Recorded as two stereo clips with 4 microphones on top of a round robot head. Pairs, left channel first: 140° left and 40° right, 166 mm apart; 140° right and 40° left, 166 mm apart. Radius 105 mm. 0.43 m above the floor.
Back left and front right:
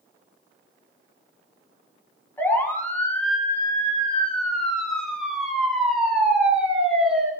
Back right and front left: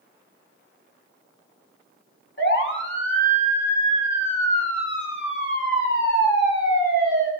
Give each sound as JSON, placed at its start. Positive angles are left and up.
{"t": 2.4, "sound": "a siren", "azimuth_deg": -140, "distance_m": 4.0}